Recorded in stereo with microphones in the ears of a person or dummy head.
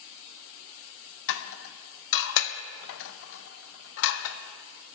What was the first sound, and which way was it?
Dishes clattering, 70° left (ahead or behind).